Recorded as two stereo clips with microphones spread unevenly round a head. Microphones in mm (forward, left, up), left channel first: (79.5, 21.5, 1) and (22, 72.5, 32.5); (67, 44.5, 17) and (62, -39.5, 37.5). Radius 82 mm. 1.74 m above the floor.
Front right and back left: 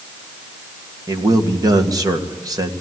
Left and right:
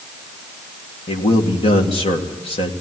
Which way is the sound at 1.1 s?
100° left.